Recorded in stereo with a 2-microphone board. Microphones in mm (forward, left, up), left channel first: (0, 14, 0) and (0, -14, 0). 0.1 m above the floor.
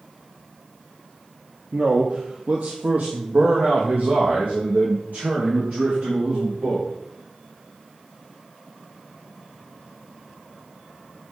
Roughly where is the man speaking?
Right.